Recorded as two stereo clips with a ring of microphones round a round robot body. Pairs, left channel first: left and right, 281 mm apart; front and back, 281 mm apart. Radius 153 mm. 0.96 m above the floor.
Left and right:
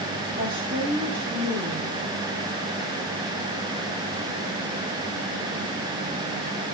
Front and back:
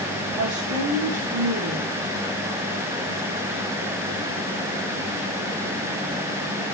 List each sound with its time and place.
0.4 s a woman speaking: 165° right, 3.5 m